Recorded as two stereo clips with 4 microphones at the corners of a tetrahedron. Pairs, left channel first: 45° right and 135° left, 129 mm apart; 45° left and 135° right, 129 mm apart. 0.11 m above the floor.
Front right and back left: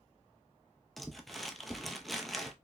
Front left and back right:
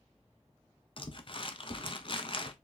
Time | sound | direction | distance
1.0 | crumpling | 45° left | 0.6 m